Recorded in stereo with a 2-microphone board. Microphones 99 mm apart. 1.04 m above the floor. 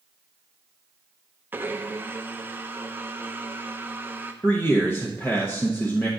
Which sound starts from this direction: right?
A blender, at 1.5 s.